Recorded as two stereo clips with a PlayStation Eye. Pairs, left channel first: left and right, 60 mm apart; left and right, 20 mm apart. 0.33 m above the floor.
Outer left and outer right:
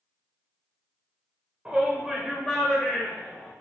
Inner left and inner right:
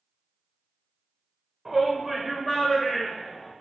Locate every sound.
1.6 s a shout: 20° right (ahead or behind), 0.9 m; by 3.5 s 10° left (ahead or behind), 1.6 m